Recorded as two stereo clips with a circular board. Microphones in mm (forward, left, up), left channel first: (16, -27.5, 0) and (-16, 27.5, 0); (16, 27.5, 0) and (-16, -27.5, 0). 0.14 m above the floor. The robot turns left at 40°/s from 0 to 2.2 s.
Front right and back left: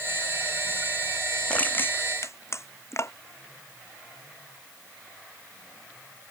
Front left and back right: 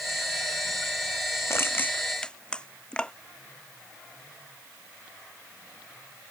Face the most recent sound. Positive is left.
turn(degrees=-15)